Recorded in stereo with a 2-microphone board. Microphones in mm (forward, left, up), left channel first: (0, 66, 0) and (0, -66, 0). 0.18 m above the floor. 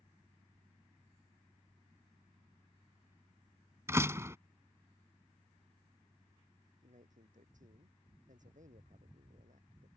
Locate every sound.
3.9 s a door slam: 20° right (ahead or behind)
6.8 s a man speaking: 75° right (ahead or behind)